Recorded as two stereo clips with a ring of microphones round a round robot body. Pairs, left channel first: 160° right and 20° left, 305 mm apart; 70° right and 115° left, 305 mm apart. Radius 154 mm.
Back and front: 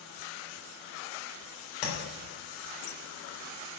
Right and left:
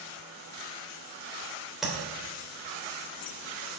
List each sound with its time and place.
1.8 s tapping: 160° right, 3.5 m